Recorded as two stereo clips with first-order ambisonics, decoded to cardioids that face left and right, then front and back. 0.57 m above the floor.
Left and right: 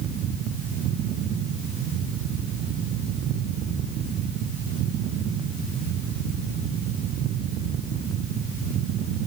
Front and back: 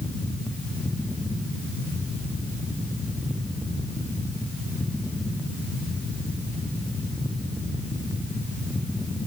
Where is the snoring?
No snoring in this recording.